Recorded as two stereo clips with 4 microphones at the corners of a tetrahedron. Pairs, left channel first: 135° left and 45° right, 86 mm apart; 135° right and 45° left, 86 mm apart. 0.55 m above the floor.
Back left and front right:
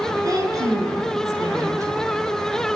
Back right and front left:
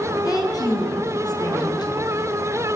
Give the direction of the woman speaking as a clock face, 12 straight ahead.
3 o'clock.